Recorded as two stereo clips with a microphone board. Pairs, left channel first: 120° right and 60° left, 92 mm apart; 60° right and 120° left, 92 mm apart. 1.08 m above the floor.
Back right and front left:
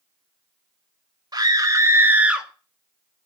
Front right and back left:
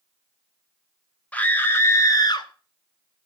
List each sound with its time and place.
1.3 s a scream: 15° left, 2 m; by 2.5 s 25° right, 1.6 m